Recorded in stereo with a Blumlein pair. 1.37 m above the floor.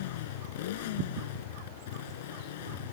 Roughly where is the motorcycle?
Ahead left.